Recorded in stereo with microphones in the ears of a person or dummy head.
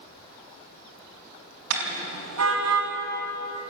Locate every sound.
1.7 s a car horn: 80° right, 4.5 m; by 2.9 s 85° right, 4 m